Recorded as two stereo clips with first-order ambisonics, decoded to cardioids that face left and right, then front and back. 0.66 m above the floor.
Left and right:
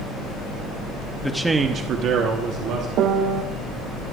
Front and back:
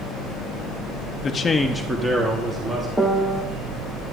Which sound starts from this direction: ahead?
A man speaking, at 1.2 s.